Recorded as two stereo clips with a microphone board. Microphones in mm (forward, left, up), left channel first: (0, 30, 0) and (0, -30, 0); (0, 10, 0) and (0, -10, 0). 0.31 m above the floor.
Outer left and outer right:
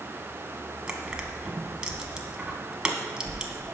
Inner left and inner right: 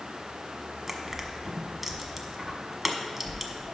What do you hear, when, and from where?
0.9 s crushing: 15° right (ahead or behind), 1.1 m